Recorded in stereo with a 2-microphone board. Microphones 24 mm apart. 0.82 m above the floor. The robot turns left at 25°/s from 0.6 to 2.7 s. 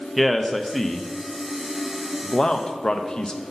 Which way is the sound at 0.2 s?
Centre (ahead or behind).